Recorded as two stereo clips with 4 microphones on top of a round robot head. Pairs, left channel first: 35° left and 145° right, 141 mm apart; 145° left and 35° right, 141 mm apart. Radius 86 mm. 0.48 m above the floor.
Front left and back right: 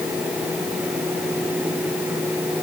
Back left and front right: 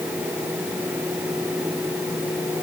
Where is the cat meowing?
I don't hear a cat meowing.